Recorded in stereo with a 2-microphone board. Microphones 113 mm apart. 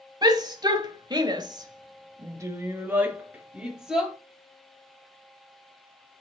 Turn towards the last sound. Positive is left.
turn(degrees=-5)  # may be behind; listen again after turning